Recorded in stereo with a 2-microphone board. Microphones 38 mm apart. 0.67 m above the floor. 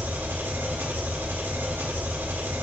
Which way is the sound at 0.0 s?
65° right (ahead or behind).